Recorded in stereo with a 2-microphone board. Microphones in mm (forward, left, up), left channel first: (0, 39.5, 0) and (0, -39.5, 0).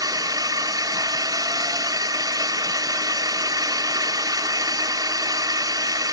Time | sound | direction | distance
0.0 | a drone | 55° right (ahead or behind) | ?